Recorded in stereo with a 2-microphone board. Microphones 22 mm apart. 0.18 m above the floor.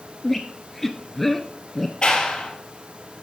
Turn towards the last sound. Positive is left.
turn(degrees=45)  # may be behind; listen again after turning